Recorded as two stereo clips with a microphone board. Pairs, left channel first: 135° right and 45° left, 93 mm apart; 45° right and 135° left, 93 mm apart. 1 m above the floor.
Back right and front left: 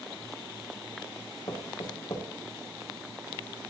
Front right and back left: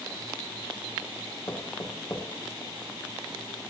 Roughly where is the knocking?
Right.